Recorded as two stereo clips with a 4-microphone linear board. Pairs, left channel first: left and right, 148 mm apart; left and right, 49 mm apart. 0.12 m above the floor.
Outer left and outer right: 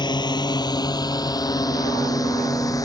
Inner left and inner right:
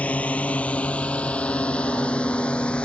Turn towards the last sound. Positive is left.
turn(degrees=25)  # may be behind; listen again after turning